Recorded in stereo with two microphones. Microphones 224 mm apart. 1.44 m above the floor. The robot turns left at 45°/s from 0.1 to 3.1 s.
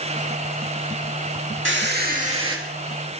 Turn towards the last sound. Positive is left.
turn(degrees=175)